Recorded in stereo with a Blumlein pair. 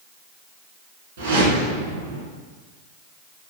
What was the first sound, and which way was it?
A whoosh, 60° right.